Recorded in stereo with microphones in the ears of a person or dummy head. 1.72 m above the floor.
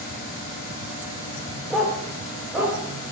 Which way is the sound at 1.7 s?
Centre (ahead or behind).